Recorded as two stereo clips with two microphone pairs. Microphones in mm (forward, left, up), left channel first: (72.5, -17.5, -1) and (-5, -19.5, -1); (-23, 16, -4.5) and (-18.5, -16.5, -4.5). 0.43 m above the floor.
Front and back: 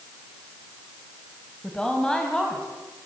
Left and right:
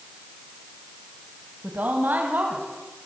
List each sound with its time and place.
1.6 s a woman speaking: 75° right, 3 m; by 2.7 s 80° right, 3.5 m